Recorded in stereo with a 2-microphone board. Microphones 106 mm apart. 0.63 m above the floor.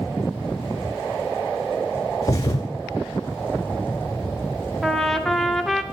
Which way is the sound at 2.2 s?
35° left (ahead or behind).